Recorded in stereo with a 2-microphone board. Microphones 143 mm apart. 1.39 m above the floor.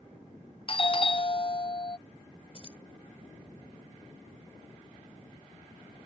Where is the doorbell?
40° left (ahead or behind).